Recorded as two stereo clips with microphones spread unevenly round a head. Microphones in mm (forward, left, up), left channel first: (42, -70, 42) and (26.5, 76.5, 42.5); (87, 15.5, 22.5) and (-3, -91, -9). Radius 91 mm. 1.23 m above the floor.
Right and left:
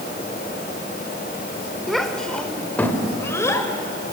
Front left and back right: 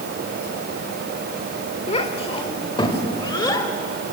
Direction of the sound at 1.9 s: 5° left.